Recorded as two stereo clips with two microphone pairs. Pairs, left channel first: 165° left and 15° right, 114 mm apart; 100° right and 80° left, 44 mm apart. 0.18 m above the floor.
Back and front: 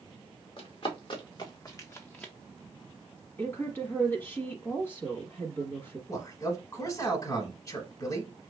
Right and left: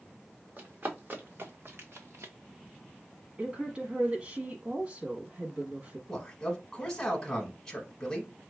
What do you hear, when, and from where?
0.6 s running footsteps: 130° left, 1.9 m; by 2.3 s 85° left, 1.0 m
3.4 s a woman speaking: 110° left, 1.2 m
6.1 s a man speaking: 170° right, 1.1 m